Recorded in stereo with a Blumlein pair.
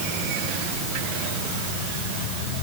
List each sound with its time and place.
Only background noise.